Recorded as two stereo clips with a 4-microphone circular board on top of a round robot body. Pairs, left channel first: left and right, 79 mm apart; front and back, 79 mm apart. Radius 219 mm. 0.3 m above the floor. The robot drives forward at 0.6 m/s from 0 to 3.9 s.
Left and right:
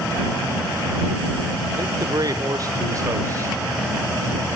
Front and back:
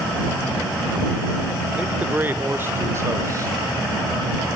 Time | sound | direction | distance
1.8 | a man speaking | 110° right | 2 m